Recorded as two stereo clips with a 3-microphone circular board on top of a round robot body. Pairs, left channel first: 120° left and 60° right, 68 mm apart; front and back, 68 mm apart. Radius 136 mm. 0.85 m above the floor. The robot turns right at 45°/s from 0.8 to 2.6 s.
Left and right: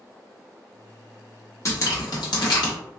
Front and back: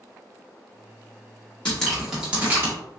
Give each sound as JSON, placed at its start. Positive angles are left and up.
{"t": 1.6, "sound": "dripping", "azimuth_deg": 75, "distance_m": 1.3}